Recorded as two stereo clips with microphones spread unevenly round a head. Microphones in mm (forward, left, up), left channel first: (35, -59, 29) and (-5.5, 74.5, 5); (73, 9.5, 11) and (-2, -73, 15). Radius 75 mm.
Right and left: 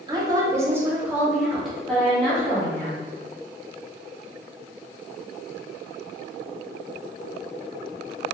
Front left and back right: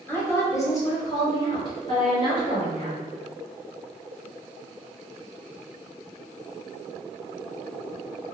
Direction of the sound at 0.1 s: 105° left.